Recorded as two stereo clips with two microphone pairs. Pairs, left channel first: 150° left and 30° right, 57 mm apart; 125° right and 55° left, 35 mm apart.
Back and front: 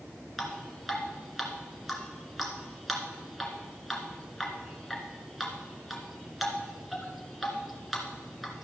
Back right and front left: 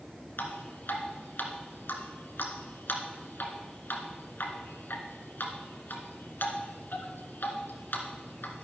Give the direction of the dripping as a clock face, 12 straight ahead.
4 o'clock.